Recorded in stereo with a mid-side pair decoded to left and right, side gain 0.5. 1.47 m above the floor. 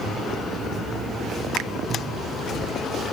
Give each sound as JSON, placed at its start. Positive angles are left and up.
{"t": 1.6, "sound": "a finger snap", "azimuth_deg": -70, "distance_m": 0.5}